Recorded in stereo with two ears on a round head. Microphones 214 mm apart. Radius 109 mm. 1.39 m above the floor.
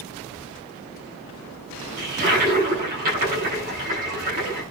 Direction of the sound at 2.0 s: 35° right (ahead or behind).